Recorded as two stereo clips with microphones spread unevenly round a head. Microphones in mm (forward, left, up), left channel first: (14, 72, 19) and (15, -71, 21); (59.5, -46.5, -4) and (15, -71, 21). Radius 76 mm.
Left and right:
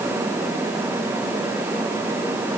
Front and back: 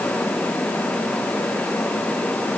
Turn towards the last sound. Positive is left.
No sound to turn to.